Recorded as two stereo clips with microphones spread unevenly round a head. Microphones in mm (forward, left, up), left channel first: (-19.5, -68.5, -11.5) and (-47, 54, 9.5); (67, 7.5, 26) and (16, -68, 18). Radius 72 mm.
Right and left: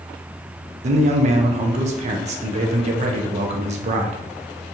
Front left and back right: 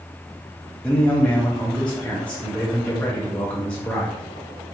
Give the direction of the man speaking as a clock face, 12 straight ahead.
7 o'clock.